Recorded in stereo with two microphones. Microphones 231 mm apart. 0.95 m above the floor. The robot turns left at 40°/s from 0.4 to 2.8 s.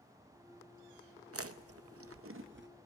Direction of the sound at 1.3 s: 75° right (ahead or behind).